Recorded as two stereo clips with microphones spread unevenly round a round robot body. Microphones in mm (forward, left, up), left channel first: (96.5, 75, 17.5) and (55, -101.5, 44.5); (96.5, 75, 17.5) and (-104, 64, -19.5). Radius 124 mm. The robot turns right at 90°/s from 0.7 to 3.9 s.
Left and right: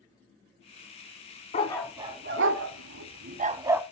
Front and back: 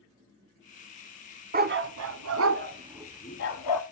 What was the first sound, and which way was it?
A dog barking, 135° left.